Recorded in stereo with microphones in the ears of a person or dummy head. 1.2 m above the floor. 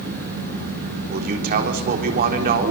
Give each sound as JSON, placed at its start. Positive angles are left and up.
{"t": 0.0, "sound": "an engine running", "side_deg": -70, "distance_m": 9.5}
{"t": 1.1, "sound": "a man speaking", "side_deg": -50, "distance_m": 4.0}